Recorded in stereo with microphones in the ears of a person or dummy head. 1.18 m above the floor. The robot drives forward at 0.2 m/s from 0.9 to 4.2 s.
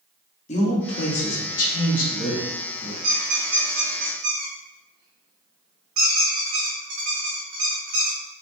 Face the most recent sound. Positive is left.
turn(degrees=-45)  # may be behind; listen again after turning